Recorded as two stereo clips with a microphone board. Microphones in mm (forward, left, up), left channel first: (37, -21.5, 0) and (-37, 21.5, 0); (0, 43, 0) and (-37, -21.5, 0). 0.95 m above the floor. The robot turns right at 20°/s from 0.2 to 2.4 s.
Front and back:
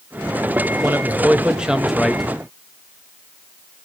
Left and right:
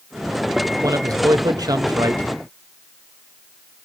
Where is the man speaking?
150° right, 1.1 m; by 2.2 s 120° right, 1.1 m.